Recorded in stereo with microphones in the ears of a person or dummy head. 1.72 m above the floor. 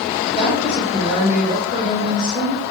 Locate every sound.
0.3 s a woman speaking: 15° left (ahead or behind), 1.0 m